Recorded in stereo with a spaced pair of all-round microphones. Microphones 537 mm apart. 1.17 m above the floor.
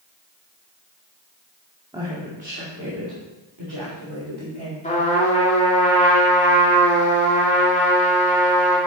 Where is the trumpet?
15° left (ahead or behind), 2.5 m.